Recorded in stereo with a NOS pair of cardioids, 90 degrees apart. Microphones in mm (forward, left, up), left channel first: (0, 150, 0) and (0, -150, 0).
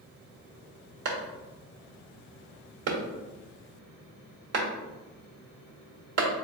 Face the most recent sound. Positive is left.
turn(degrees=-60)